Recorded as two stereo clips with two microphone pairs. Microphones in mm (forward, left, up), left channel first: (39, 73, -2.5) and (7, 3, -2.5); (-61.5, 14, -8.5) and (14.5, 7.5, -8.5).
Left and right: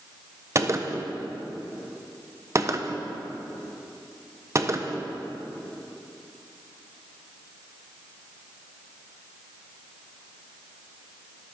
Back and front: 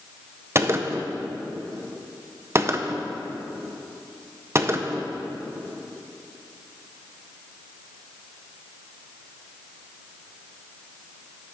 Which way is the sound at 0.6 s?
60° right.